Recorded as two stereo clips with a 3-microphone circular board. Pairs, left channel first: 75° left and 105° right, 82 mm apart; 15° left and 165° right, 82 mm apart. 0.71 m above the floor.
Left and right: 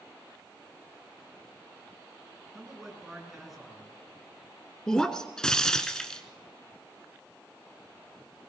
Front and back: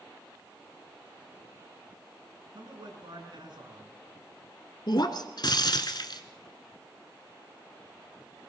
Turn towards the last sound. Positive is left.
turn(degrees=-5)